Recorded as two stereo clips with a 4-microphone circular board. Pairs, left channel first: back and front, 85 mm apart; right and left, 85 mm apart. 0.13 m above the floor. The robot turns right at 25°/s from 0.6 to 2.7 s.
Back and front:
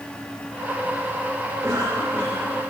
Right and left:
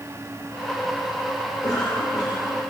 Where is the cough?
55° right, 8.5 m; by 2.6 s 30° right, 8.5 m.